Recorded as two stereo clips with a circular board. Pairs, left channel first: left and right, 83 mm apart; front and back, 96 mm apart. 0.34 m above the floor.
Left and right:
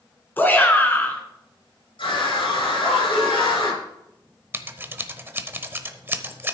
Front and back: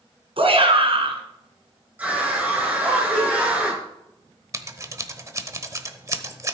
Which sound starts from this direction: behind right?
Scissors, at 4.5 s.